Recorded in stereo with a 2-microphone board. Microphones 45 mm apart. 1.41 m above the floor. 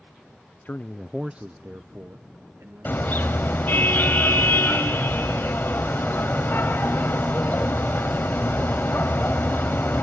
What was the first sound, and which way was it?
A man speaking, 45° left (ahead or behind).